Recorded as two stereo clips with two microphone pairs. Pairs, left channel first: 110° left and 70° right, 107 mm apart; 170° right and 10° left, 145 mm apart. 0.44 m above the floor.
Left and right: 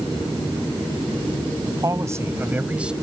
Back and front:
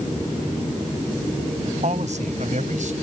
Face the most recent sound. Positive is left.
turn(degrees=10)